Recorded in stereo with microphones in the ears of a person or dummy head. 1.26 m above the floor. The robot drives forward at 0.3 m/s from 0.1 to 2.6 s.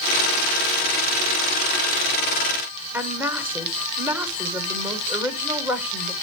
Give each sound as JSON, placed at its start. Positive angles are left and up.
{"t": 2.9, "sound": "a woman speaking", "side_deg": -15, "distance_m": 1.4}